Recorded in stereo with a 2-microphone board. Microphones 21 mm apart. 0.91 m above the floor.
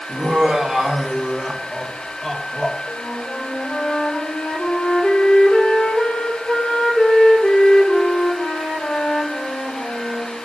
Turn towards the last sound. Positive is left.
turn(degrees=30)  # may be behind; listen again after turning